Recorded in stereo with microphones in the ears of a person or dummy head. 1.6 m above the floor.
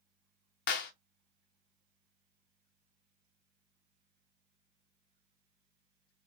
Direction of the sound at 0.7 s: 45° left (ahead or behind).